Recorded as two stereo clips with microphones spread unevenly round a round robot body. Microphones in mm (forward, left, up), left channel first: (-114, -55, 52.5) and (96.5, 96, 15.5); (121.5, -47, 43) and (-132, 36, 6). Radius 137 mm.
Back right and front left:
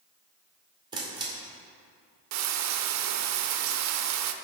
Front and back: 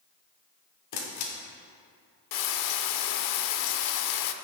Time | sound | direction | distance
0.9 | a camera shutter | 35° right | 2.0 m
2.3 | frying | straight ahead | 0.6 m